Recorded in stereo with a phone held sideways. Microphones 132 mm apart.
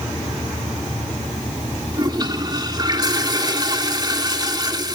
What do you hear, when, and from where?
1.9 s a toilet flushing: 35° right (ahead or behind), 2.5 m